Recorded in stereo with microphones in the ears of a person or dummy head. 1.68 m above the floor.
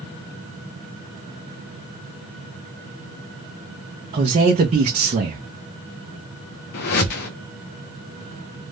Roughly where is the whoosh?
Left.